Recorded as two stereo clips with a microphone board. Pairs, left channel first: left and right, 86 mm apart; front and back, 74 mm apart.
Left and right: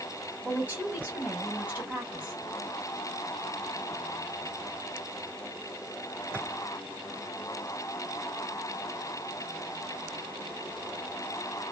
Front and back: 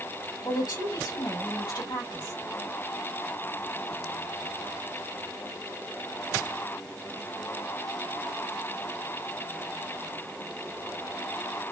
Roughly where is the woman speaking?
Ahead.